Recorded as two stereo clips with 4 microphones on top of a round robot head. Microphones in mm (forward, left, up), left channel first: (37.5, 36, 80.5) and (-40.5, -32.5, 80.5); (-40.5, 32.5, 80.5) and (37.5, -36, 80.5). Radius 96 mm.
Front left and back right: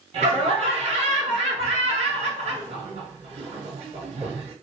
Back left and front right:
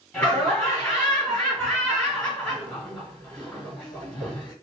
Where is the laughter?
135° right, 2.5 m.